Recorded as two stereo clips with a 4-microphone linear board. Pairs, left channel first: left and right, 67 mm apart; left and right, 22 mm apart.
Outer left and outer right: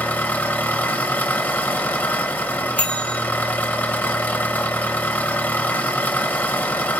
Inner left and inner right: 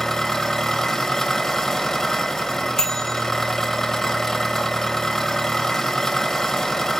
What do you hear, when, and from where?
0.0 s an engine running: 25° left (ahead or behind), 0.9 m
2.8 s a bell: 20° left (ahead or behind), 1.2 m